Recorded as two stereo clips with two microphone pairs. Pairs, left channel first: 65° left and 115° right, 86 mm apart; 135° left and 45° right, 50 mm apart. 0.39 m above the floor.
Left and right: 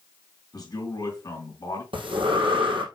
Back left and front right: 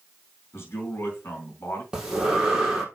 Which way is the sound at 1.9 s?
115° right.